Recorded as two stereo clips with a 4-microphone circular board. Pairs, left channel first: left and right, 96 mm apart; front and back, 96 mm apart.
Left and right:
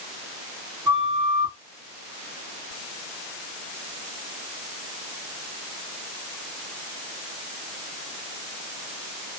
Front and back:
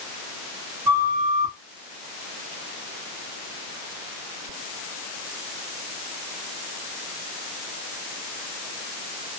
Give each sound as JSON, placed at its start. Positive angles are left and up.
{"t": 0.8, "sound": "a flute", "azimuth_deg": -160, "distance_m": 1.4}